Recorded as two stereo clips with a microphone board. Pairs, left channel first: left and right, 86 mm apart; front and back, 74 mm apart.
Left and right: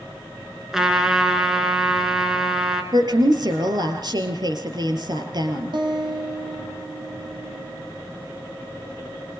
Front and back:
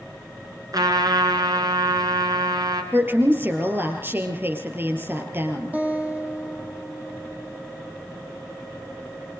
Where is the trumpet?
170° right, 3.5 m.